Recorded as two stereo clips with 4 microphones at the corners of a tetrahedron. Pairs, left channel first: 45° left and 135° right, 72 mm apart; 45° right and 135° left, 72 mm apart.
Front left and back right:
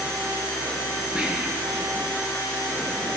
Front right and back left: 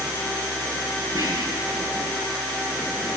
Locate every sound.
1.1 s whispering: 150° left, 3.5 m